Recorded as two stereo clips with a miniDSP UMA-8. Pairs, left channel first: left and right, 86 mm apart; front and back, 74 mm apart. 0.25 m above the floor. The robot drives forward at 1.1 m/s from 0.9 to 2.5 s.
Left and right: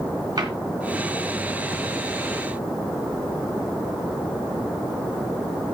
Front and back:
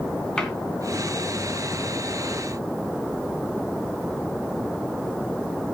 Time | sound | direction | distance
0.4 | a cupboard door | 80° right | 2.5 m